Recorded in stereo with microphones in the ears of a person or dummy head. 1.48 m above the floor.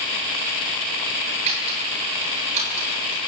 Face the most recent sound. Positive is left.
turn(degrees=-40)  # may be behind; listen again after turning